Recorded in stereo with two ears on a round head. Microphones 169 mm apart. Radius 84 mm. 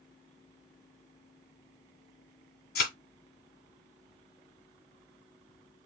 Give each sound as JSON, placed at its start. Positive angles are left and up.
{"t": 2.8, "sound": "a thud", "side_deg": 55, "distance_m": 1.7}